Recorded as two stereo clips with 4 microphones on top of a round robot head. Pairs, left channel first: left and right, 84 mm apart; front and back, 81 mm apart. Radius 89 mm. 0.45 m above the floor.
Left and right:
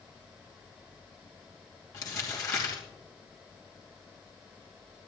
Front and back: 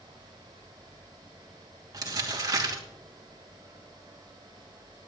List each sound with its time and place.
1.9 s crumpling: 140° left, 2.5 m